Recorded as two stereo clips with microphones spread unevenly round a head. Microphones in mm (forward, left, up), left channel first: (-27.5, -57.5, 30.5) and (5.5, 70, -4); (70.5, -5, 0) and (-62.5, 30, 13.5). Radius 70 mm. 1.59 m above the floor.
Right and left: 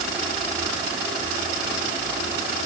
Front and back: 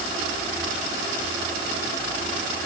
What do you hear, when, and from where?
Only background noise.